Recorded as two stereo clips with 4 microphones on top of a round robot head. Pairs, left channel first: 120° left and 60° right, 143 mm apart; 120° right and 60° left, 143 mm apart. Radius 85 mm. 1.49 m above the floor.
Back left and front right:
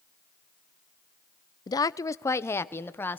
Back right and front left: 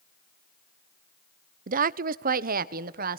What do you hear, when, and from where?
1.7 s a woman speaking: 60° left, 0.6 m; by 3.2 s 45° left, 1.4 m